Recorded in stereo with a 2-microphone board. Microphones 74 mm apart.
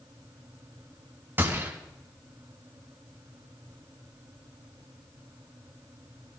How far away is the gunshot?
About 3.5 m.